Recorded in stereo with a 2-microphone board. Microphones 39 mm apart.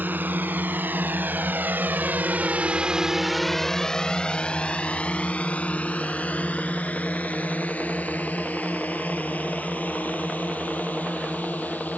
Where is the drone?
55° right (ahead or behind); by 12.0 s 45° left (ahead or behind).